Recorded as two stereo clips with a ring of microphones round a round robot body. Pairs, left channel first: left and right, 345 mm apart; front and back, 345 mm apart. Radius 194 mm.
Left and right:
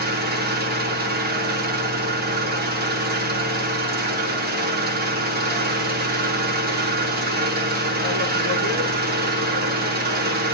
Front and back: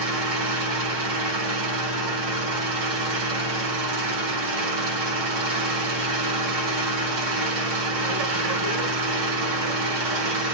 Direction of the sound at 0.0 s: 150° right.